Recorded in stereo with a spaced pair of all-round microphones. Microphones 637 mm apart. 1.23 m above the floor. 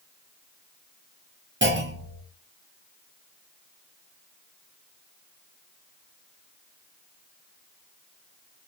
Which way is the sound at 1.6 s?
20° right (ahead or behind).